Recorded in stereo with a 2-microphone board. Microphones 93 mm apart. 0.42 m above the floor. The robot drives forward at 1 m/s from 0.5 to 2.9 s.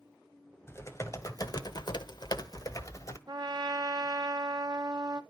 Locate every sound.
0.7 s typing on a keyboard: 30° left (ahead or behind), 1.6 m; by 3.2 s 35° left (ahead or behind), 1.3 m
3.3 s a trumpet: 45° right (ahead or behind), 0.6 m